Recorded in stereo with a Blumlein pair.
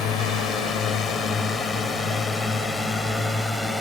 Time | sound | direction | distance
0.0 | a drone | 30° left | ?